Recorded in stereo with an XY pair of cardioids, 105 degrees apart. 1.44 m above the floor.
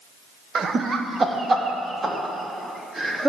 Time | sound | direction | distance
0.6 | laughter | 50° right | 0.8 m